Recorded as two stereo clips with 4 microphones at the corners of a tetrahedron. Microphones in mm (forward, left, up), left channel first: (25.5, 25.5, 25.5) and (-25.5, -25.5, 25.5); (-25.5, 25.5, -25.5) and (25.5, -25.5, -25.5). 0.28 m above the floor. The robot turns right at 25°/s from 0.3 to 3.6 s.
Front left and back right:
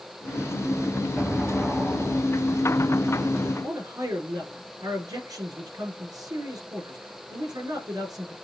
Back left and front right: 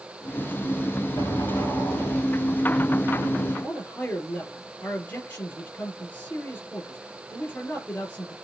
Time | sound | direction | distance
1.2 | an explosion | 135° left | 6.5 m
3.6 | a man speaking | 165° right | 5.5 m